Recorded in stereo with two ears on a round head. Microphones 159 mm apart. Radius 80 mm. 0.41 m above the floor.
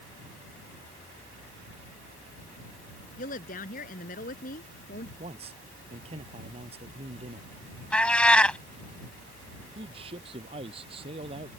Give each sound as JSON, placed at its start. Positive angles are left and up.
{"t": 3.2, "sound": "a woman speaking", "side_deg": 50}
{"t": 5.2, "sound": "a man speaking", "side_deg": -35}
{"t": 7.9, "sound": "a cat meowing", "side_deg": 5}
{"t": 9.8, "sound": "a man speaking", "side_deg": -30}